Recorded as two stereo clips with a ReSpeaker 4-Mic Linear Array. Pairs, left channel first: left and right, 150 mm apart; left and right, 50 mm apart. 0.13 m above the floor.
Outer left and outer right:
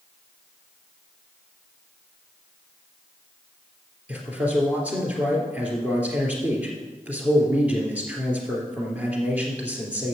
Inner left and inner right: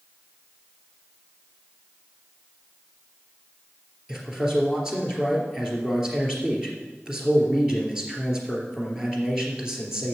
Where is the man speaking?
10° right (ahead or behind), 2.5 m.